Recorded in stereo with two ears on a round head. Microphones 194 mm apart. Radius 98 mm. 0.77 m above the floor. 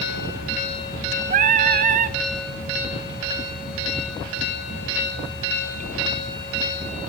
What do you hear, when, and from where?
1.3 s singing: 35° right (ahead or behind), 0.5 m